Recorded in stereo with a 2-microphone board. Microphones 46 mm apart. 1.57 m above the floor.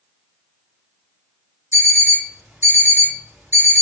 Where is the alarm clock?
65° right (ahead or behind), 2.5 m.